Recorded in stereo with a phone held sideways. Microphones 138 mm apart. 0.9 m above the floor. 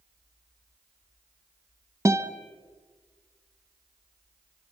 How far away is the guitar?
About 1.1 m.